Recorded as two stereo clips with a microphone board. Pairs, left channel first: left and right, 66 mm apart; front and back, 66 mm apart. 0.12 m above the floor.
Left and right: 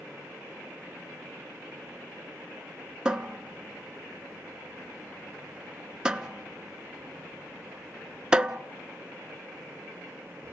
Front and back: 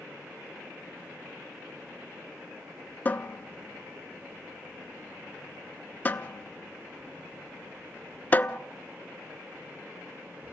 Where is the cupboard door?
25° right, 0.6 m.